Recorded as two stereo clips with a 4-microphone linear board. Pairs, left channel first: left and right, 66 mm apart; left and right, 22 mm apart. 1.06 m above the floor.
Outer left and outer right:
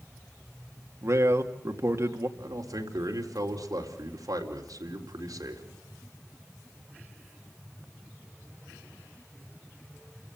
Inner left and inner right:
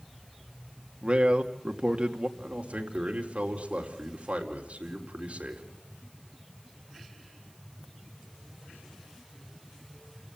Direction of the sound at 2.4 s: 70° right (ahead or behind).